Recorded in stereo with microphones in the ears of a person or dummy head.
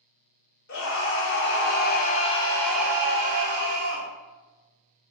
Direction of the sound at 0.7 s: 60° left (ahead or behind).